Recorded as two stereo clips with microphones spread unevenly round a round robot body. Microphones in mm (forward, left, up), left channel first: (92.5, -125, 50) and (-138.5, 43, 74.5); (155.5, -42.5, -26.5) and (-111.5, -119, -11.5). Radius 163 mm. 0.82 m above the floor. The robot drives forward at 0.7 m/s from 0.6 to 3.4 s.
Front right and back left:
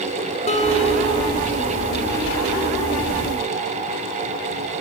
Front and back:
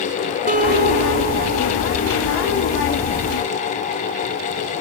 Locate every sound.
0.5 s a guitar: 105° right, 3.5 m; by 2.2 s 120° right, 3.5 m